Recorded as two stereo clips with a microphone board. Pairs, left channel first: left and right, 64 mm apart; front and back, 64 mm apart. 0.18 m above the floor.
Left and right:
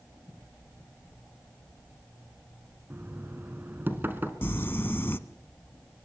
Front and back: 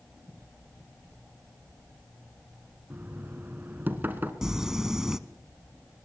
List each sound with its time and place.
2.9 s knocking: 135° right, 1.9 m
4.4 s crumpling: 105° left, 0.9 m